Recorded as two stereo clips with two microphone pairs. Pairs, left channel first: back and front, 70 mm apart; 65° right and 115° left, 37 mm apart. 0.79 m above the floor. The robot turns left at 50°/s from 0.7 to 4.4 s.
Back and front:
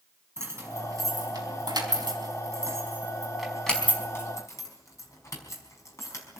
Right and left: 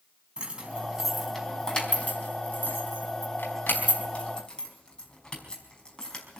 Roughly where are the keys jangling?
Ahead left.